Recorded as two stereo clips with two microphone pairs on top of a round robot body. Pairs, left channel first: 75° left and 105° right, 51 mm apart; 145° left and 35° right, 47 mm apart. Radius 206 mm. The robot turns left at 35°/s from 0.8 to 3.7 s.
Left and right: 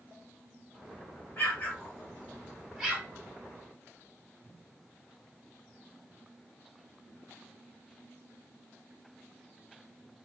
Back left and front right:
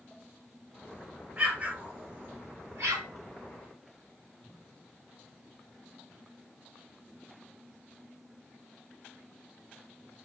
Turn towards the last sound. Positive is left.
turn(degrees=-60)